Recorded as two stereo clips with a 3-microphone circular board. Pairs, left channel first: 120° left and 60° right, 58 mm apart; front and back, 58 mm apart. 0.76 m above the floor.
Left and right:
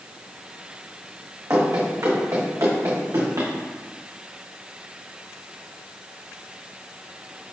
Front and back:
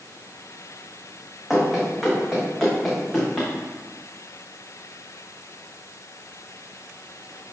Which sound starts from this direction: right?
Running footsteps, at 1.5 s.